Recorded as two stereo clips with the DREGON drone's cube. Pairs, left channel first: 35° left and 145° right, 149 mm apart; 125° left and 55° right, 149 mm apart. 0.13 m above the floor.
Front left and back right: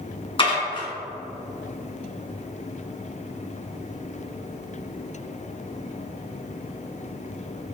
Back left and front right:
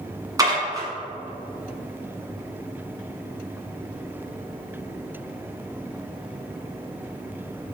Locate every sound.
0.4 s dishes clattering: straight ahead, 1.3 m